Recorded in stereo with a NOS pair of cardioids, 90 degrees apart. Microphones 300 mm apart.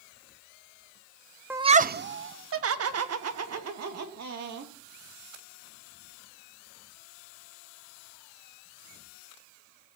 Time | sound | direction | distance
1.5 | laughter | 5° right | 0.5 m